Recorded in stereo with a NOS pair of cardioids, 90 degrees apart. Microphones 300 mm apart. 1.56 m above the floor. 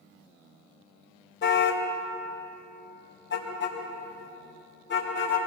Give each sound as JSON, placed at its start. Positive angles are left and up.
{"t": 1.4, "sound": "a car horn", "azimuth_deg": 40, "distance_m": 3.5}